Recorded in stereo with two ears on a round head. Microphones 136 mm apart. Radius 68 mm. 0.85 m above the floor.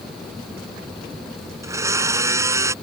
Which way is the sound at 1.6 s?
20° right (ahead or behind).